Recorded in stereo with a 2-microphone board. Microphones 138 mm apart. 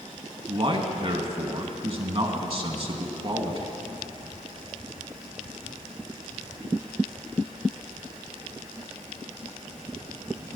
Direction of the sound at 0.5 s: 40° right (ahead or behind).